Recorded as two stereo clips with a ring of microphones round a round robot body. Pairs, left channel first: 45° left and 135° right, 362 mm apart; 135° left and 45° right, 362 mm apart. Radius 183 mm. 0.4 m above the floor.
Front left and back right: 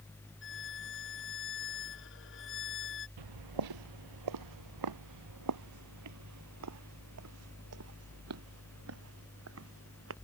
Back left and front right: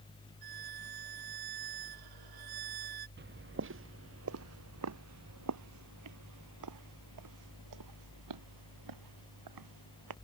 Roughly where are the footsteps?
Right.